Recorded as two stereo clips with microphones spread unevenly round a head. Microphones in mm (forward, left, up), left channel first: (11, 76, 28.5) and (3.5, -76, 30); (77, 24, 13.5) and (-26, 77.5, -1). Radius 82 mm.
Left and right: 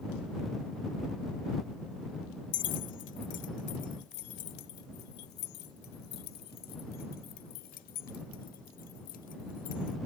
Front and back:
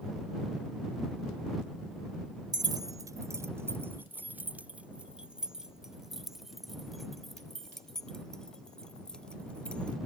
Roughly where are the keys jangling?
Left.